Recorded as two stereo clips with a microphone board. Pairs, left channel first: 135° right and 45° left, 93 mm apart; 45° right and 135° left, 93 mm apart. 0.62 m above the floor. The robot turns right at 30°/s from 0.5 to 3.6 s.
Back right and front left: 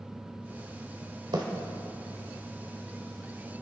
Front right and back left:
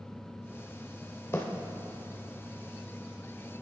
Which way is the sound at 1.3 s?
15° left.